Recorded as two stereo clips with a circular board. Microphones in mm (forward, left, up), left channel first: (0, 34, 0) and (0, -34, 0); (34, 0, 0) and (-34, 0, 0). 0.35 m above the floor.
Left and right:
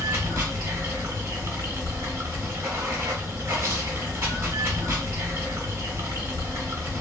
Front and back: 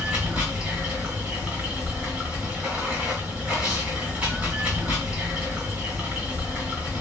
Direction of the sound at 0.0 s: 115° right.